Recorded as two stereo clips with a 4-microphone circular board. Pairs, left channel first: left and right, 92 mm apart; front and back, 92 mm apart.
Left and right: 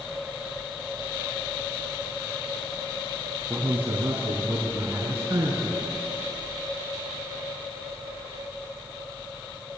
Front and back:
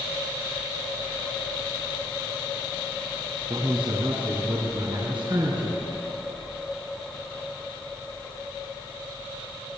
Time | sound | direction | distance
3.5 | a man speaking | 165° right | 5 m